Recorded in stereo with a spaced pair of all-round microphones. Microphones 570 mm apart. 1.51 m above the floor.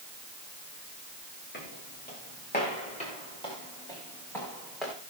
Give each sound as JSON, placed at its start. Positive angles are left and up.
{"t": 1.5, "sound": "footsteps", "side_deg": 20, "distance_m": 9.0}